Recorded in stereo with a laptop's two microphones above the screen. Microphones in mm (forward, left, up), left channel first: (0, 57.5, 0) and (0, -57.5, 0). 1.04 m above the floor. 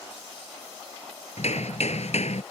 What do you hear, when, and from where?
1.4 s hammering: 75° left (ahead or behind)